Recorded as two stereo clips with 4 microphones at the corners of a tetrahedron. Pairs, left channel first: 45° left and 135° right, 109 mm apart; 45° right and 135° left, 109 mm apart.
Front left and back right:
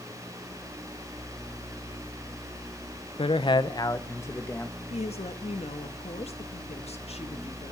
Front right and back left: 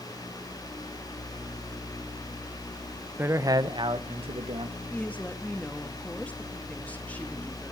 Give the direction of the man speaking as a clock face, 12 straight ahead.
10 o'clock.